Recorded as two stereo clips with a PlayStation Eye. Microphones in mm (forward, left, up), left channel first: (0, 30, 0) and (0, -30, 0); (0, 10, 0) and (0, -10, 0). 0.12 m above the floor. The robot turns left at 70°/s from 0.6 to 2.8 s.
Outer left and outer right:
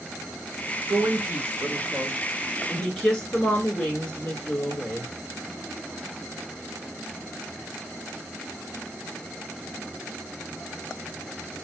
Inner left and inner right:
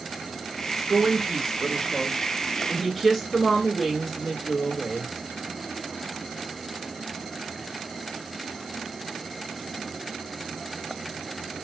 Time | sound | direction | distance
0.9 | a woman speaking | 75° right | 1.5 m